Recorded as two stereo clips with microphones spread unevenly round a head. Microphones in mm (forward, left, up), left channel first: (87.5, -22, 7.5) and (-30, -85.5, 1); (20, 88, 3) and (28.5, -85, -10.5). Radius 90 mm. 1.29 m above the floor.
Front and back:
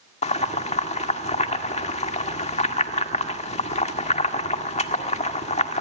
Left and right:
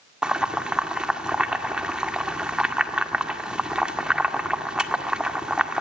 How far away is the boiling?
About 1.8 m.